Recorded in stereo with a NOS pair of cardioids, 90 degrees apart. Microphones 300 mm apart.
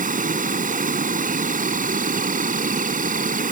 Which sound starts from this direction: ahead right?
An insect, at 0.0 s.